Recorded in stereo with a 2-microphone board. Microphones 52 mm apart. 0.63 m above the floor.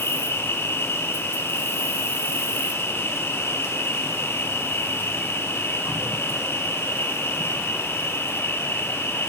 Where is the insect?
50° left (ahead or behind), 1.9 m.